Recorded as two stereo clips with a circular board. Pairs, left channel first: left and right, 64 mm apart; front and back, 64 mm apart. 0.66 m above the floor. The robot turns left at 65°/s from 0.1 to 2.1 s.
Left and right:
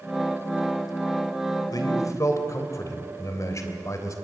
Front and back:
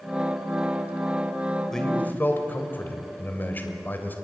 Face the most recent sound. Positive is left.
turn(degrees=60)